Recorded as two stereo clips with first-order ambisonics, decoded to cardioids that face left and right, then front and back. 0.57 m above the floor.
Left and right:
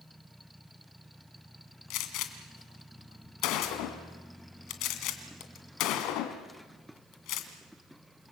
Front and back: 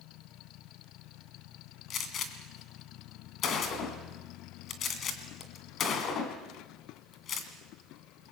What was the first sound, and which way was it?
A gunshot, 55° left.